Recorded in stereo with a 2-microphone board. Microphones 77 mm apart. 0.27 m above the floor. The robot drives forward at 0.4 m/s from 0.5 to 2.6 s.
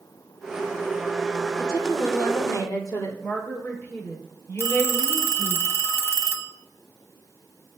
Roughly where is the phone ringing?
Left.